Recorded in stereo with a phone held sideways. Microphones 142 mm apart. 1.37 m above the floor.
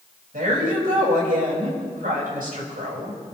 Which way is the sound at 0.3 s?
75° right (ahead or behind).